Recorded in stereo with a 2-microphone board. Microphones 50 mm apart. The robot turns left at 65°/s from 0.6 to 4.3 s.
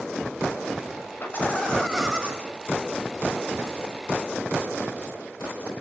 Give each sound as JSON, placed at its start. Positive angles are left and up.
{"t": 1.2, "sound": "laughter", "azimuth_deg": 50, "distance_m": 7.5}